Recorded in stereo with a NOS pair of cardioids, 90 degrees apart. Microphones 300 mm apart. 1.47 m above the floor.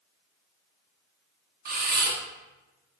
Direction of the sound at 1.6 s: 30° right.